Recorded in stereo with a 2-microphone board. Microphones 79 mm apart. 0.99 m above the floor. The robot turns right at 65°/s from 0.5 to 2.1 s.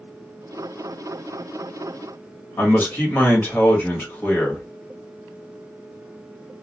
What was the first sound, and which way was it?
A man speaking, 25° left (ahead or behind).